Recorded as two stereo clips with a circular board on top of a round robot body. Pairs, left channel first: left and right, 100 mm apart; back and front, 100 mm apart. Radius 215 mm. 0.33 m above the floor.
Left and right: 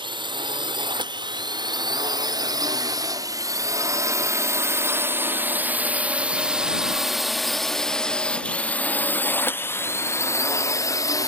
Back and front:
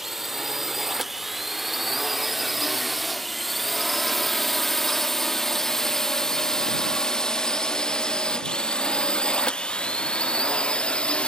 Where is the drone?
85° right; by 11.3 s 105° left.